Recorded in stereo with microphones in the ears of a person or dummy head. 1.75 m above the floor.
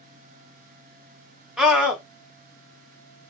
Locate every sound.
1.6 s a scream: 5° right (ahead or behind), 1.0 m